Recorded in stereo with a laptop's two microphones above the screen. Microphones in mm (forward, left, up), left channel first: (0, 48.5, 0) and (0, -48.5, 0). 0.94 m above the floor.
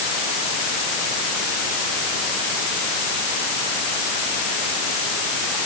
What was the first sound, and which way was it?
Only background noise.